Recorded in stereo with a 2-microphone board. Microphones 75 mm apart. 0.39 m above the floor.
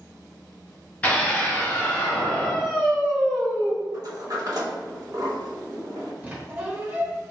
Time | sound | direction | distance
1.0 | a scream | 20° left (ahead or behind) | 1.0 m
3.9 | a sliding door | 55° right (ahead or behind) | 0.7 m
6.2 | a squeak | 20° right (ahead or behind) | 0.9 m